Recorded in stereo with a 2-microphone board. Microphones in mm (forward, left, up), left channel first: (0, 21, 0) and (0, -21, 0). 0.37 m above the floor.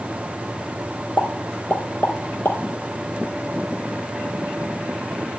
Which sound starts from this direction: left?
A pop, at 1.2 s.